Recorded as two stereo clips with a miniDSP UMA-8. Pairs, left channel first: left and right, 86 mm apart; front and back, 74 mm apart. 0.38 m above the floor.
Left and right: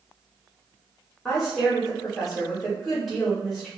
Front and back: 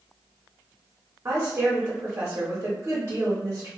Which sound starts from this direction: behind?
A woman speaking, at 1.2 s.